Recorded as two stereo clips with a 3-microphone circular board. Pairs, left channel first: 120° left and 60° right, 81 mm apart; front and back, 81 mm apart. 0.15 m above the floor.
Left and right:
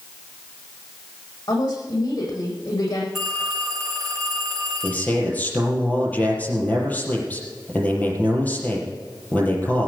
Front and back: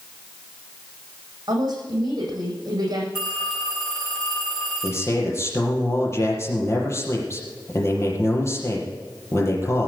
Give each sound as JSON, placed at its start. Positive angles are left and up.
{"t": 1.5, "sound": "a woman speaking", "azimuth_deg": 145, "distance_m": 8.5}
{"t": 3.1, "sound": "a phone ringing", "azimuth_deg": 25, "distance_m": 6.5}
{"t": 4.8, "sound": "a man speaking", "azimuth_deg": 55, "distance_m": 4.5}